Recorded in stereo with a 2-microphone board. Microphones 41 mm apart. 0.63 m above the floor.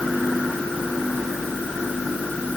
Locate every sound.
Only background noise.